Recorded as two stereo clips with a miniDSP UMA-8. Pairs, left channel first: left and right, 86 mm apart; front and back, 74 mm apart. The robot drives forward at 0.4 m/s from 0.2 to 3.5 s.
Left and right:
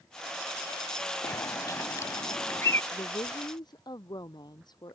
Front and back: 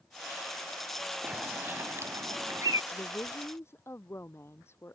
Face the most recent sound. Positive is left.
turn(degrees=55)